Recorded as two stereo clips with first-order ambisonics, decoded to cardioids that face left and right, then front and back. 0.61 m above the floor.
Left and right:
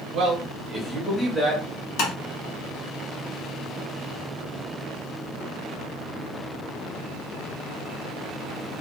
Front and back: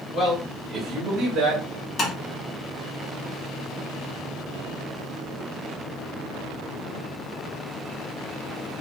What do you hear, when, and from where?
0.1 s a man speaking: 65° right, 1.0 m; by 1.6 s 165° left, 1.1 m
2.0 s tapping: 60° left, 0.9 m